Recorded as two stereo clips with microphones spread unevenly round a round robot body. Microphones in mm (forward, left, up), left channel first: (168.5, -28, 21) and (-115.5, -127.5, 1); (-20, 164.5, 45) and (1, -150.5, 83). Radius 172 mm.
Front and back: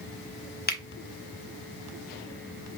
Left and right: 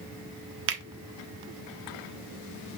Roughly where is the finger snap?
Ahead right.